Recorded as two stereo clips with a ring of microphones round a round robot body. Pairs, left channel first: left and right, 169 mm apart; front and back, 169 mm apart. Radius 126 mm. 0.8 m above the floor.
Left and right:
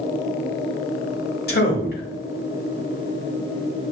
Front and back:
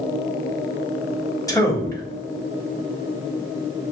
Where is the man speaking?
70° left, 1.9 m.